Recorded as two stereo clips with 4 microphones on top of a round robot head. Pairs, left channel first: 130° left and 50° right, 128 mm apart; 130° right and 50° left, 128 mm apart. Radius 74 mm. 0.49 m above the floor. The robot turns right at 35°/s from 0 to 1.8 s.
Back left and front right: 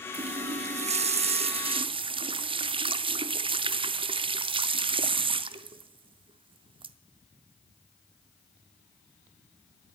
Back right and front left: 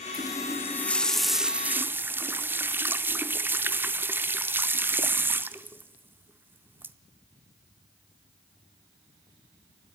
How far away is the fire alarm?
No fire alarm in this recording.